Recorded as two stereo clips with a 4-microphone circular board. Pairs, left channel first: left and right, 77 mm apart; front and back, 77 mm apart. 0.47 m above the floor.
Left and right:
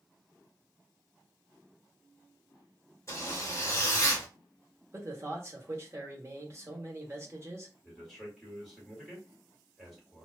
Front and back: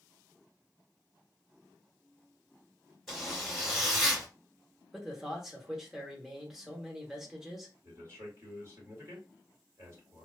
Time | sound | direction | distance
3.1 | a zipper | 90° left | 1.6 m
4.9 | a man speaking | 100° right | 0.9 m
7.8 | a man speaking | 175° left | 1.7 m